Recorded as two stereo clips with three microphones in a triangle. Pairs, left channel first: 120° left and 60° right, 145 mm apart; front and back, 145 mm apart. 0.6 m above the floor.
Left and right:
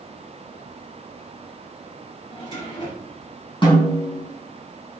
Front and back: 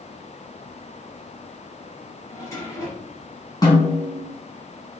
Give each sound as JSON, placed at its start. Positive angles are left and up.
{"t": 2.3, "sound": "a drawer", "azimuth_deg": 65, "distance_m": 4.5}
{"t": 3.6, "sound": "a snare drum", "azimuth_deg": 65, "distance_m": 3.5}